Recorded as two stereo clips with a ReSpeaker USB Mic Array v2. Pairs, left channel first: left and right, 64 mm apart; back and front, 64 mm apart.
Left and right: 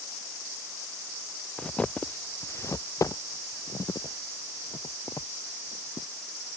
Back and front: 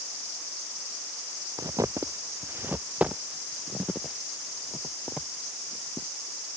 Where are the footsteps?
10° left; by 6.1 s 100° left.